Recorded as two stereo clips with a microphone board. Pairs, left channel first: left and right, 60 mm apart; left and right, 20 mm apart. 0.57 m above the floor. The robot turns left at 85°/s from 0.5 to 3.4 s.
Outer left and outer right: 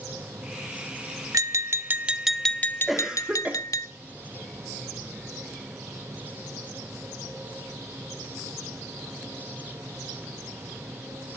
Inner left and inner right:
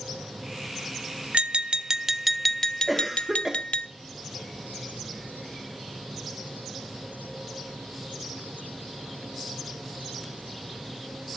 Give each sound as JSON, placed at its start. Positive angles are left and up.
{"t": 1.3, "sound": "tapping", "azimuth_deg": -95, "distance_m": 0.8}
{"t": 2.9, "sound": "a cough", "azimuth_deg": 0, "distance_m": 1.0}